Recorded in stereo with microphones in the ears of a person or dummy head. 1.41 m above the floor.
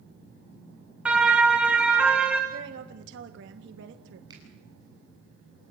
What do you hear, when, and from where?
1.1 s a siren: centre (ahead or behind), 2 m
2.5 s a woman speaking: 75° right (ahead or behind), 1.5 m
4.3 s a finger snap: 30° right (ahead or behind), 9 m